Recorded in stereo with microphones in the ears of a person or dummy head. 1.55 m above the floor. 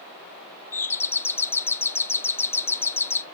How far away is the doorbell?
About 0.6 m.